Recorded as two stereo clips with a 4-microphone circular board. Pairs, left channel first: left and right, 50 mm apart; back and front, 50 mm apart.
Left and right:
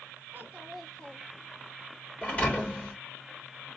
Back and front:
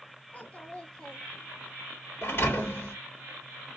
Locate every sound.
0.3 s a child speaking: 130° right, 0.8 m; by 1.7 s 75° left, 1.0 m
2.2 s a thud: 145° left, 2 m